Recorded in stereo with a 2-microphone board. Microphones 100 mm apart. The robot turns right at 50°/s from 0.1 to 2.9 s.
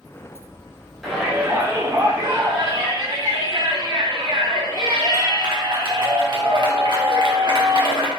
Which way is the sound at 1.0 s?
Straight behind.